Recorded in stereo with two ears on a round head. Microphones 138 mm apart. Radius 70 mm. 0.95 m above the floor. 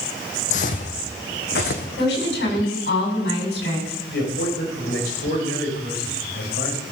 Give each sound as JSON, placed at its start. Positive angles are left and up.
{"t": 0.5, "sound": "footsteps", "side_deg": 50, "distance_m": 1.9}
{"t": 2.0, "sound": "a woman speaking", "side_deg": 85, "distance_m": 7.5}
{"t": 4.1, "sound": "a man speaking", "side_deg": 75, "distance_m": 5.0}